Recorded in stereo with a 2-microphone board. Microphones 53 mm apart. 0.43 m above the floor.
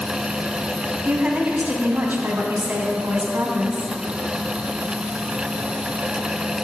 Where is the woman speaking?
35° right (ahead or behind), 4 m; by 3.9 s 60° right (ahead or behind), 4 m.